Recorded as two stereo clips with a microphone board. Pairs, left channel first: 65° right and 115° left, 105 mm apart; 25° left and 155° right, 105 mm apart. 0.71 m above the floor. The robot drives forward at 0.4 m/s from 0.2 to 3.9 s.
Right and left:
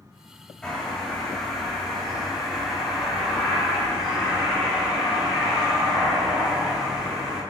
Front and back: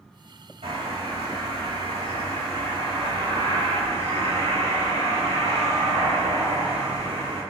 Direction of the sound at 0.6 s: 150° right.